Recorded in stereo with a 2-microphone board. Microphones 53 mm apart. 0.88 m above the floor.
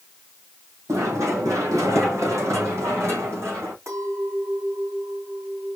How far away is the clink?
About 3.5 m.